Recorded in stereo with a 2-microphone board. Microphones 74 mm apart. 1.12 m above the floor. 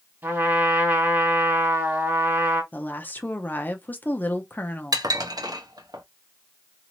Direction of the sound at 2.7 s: 25° left (ahead or behind).